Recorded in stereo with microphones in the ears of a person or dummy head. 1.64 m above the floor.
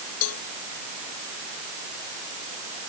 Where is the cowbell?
75° left (ahead or behind).